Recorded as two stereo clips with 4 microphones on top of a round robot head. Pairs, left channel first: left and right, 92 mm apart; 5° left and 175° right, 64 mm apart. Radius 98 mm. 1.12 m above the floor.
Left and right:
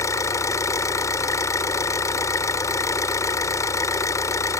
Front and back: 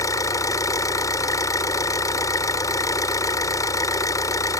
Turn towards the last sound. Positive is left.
turn(degrees=35)